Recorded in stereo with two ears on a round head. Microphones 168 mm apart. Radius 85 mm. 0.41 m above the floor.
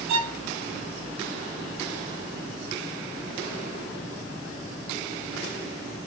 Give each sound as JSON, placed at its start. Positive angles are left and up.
{"t": 0.1, "sound": "a violin", "side_deg": -30, "distance_m": 1.2}